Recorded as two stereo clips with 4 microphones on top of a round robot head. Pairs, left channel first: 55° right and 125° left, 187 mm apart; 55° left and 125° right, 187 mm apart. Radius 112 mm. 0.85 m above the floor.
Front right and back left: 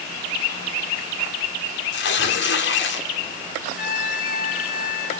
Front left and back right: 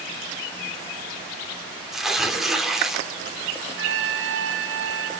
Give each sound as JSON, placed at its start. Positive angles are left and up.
{"t": 1.9, "sound": "tearing paper", "azimuth_deg": -35, "distance_m": 3.0}
{"t": 3.8, "sound": "a trumpet", "azimuth_deg": -100, "distance_m": 7.0}